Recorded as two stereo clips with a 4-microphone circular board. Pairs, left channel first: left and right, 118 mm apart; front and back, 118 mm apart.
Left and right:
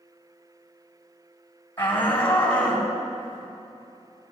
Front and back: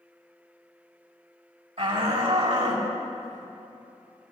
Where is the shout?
160° left, 2.5 m; by 4.3 s 175° left, 4 m.